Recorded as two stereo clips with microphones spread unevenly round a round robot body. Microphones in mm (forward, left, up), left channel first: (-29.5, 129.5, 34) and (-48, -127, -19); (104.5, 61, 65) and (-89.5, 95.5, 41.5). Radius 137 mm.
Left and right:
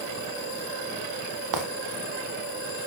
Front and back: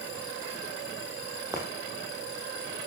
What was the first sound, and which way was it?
Footsteps, 105° right.